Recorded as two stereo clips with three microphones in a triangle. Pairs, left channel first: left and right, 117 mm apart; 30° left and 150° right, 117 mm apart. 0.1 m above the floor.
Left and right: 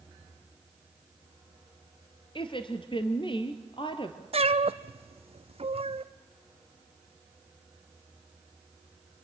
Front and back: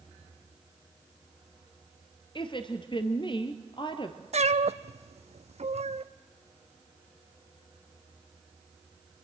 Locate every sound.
2.4 s a woman speaking: 60° left, 1.8 m
4.3 s a cat meowing: 125° right, 0.7 m